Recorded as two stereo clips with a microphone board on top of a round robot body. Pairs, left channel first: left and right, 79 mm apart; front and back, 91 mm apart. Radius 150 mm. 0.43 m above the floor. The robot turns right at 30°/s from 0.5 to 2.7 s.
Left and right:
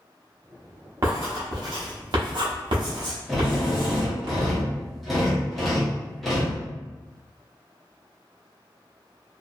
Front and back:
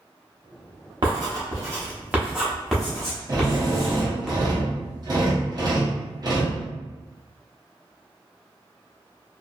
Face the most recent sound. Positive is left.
turn(degrees=180)